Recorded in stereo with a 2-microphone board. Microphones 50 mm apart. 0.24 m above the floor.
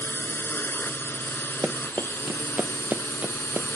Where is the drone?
45° left (ahead or behind); by 3.8 s 55° left (ahead or behind).